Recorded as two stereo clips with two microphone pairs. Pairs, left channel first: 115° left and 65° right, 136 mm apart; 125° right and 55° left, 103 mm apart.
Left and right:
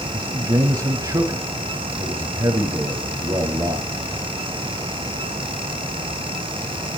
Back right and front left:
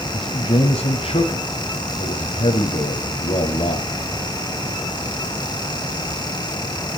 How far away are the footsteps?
I don't hear footsteps.